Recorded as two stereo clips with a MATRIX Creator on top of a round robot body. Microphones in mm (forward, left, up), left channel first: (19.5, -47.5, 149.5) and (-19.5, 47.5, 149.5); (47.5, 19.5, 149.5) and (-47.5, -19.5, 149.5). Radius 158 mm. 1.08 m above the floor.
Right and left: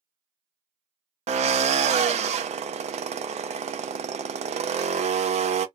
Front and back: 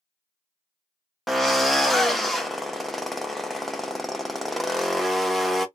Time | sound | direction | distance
1.3 | a drill | 110° left | 0.5 m